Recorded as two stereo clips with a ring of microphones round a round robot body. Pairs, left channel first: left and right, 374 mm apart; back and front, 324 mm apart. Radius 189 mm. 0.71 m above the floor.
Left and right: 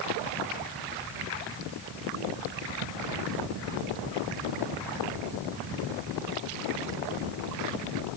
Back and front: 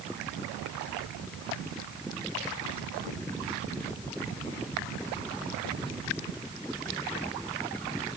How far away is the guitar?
I don't hear a guitar.